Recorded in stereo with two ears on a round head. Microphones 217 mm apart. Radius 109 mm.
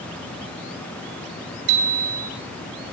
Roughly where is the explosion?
No explosion in this recording.